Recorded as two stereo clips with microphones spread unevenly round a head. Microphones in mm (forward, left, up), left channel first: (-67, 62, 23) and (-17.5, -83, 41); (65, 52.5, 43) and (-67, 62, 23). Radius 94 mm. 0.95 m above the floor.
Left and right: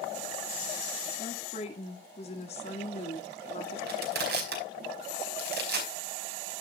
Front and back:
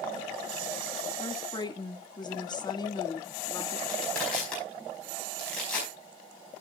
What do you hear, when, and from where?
1.2 s a woman speaking: 55° left, 1.9 m
3.9 s crushing: 90° right, 4.5 m